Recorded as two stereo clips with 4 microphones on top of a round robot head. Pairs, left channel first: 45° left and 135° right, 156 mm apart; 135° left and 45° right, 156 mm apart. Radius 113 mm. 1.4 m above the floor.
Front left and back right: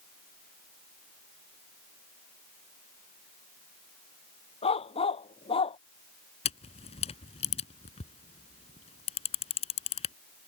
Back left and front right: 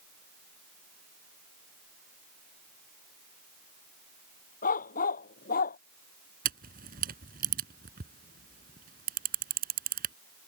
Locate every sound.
4.6 s a dog barking: 100° left
6.5 s a camera shutter: 10° right